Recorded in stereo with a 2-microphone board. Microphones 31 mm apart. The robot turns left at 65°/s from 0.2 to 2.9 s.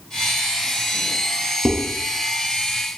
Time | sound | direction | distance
1.6 | dishes clattering | 20° right (ahead or behind) | 0.8 m